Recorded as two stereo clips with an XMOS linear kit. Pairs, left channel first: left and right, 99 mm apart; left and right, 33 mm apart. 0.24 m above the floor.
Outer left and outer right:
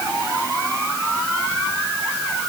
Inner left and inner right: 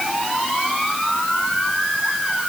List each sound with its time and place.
Only background noise.